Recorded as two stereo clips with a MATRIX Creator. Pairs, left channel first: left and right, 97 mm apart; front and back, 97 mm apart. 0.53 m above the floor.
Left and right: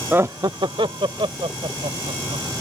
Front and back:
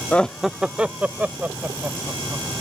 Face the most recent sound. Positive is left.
turn(degrees=-110)